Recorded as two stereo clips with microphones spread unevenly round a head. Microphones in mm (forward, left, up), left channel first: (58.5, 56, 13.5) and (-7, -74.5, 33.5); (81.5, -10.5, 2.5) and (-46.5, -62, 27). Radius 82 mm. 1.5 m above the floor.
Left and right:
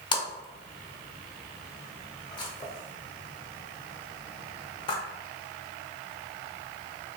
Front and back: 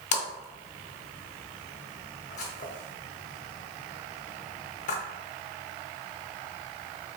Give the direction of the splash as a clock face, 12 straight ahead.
12 o'clock.